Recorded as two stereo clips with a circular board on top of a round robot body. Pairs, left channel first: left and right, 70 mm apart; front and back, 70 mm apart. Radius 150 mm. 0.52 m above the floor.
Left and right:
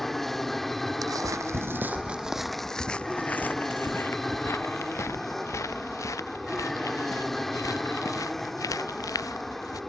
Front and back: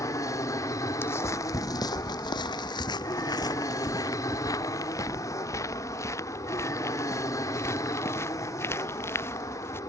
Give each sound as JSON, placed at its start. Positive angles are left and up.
{"t": 0.0, "sound": "an aircraft", "azimuth_deg": 5}
{"t": 1.0, "sound": "footsteps", "azimuth_deg": -55}